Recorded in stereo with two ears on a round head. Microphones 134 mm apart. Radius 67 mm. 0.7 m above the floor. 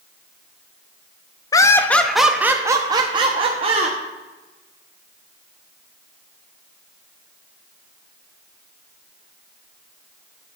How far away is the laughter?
About 0.7 m.